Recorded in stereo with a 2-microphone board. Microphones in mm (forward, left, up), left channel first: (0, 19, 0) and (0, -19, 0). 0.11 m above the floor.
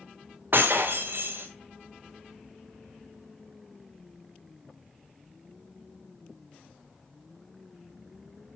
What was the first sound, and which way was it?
Breaking glass, 65° right (ahead or behind).